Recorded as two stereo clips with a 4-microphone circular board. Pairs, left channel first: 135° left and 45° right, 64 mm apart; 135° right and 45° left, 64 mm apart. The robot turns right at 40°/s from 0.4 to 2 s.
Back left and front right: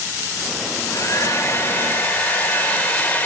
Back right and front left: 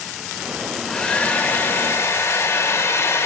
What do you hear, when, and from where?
0.7 s a hair dryer: 145° left, 1.4 m; by 3.3 s 165° right, 1.4 m